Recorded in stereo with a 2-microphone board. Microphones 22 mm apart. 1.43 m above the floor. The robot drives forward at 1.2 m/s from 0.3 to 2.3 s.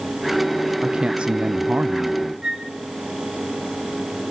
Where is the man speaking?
35° right (ahead or behind), 1.3 m; by 2.3 s 40° right (ahead or behind), 1.1 m.